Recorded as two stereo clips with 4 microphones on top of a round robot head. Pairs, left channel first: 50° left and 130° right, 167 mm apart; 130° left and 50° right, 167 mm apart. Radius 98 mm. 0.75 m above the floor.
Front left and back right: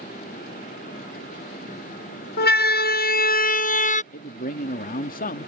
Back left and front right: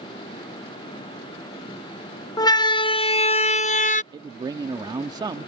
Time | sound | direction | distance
2.4 | a siren | 65° left | ?
4.1 | a man speaking | 15° left | ?